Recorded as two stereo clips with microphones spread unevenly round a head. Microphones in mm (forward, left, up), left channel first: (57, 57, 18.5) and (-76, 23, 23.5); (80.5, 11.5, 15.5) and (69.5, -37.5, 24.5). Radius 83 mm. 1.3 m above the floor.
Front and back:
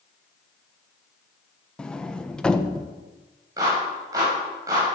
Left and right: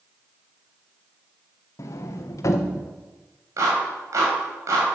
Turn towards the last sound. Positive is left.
turn(degrees=-95)